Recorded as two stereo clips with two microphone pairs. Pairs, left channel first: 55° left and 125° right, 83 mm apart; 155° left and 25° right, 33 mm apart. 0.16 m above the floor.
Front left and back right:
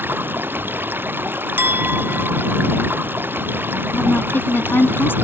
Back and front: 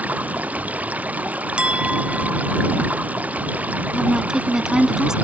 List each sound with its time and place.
0.0 s running water: 60° right
1.6 s a clink: 65° right
3.9 s a woman speaking: 25° left